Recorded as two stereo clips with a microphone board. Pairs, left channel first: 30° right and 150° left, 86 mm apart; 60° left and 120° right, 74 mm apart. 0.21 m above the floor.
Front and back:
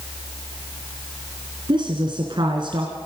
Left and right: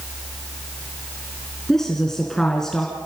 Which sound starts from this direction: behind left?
A woman speaking, at 1.7 s.